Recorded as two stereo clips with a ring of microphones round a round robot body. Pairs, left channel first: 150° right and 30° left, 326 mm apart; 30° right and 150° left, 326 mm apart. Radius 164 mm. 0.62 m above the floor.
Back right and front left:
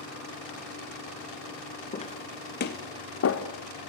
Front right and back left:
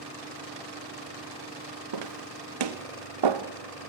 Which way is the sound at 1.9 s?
140° left.